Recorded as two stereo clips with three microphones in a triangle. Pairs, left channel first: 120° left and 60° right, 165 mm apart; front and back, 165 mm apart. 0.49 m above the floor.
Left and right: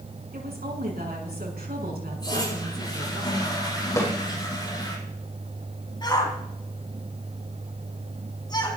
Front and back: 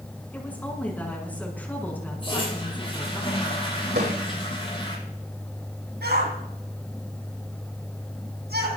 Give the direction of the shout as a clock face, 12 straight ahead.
6 o'clock.